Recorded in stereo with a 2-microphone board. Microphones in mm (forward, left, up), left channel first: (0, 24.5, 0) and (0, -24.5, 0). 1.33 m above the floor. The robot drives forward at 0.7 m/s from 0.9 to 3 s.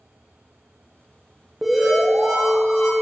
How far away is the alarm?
About 1.2 m.